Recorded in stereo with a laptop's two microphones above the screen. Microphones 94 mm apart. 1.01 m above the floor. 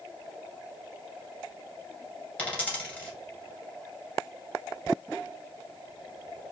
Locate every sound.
2.4 s a dropped coin: 15° left (ahead or behind), 1.9 m